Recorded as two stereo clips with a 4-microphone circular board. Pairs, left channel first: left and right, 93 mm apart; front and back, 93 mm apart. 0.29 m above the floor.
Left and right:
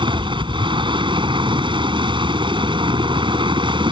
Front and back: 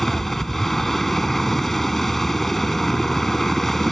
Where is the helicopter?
90° right.